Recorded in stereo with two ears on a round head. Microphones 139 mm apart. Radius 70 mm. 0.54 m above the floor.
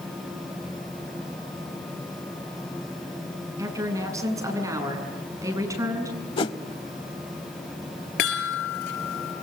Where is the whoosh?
35° left (ahead or behind), 0.9 m.